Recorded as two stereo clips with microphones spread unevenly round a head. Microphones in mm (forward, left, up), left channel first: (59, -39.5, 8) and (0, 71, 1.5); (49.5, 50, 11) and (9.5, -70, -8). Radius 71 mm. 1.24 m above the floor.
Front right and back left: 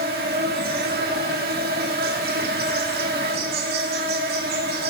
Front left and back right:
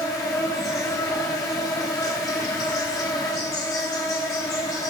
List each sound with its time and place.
0.0 s an insect: 135° left, 1.7 m